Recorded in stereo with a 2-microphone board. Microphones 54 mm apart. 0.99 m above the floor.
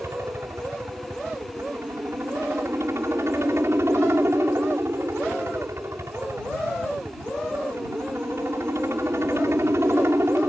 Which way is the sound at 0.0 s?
55° right (ahead or behind).